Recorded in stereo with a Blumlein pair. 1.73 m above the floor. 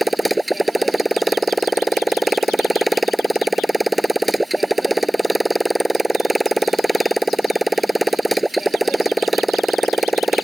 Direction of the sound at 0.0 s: 5° right.